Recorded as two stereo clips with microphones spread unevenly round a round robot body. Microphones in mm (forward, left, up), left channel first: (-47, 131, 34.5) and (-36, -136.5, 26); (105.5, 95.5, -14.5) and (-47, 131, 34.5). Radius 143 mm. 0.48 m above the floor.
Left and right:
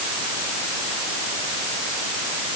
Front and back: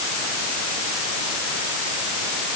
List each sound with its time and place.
Only background noise.